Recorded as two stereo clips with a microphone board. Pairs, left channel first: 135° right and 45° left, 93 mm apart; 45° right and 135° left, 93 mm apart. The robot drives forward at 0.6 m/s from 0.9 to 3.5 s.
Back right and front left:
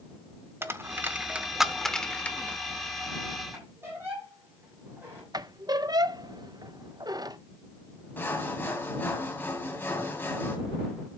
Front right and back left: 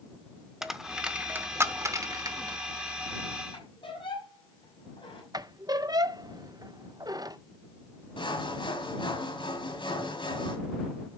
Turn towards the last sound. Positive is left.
turn(degrees=-70)